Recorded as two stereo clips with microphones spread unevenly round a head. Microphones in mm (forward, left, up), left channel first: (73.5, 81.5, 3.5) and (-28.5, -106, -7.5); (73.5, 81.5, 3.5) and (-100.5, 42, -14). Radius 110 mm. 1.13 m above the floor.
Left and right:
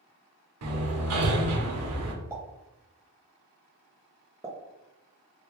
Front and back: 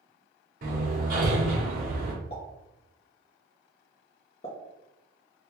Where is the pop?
45° right, 0.8 m.